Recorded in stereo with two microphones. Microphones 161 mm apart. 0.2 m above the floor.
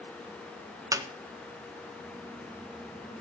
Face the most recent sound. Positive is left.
turn(degrees=-20)  # may be behind; listen again after turning